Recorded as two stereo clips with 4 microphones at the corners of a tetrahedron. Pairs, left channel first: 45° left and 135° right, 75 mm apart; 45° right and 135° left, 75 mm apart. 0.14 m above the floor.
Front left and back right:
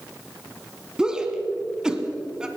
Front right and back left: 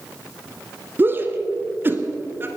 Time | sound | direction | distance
1.0 | a shout | 155° left | 1.3 m